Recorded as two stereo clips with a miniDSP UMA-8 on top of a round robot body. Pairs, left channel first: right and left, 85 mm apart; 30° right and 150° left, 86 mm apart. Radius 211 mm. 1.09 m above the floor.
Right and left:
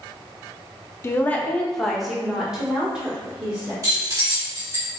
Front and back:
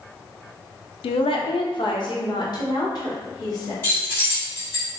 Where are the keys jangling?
35° left, 1.9 m.